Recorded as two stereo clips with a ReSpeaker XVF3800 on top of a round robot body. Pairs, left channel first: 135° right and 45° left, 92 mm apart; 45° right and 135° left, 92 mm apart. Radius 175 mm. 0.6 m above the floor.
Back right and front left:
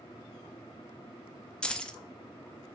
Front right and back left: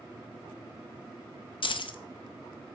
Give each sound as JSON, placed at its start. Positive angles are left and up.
{"t": 1.6, "sound": "keys jangling", "azimuth_deg": -55, "distance_m": 0.6}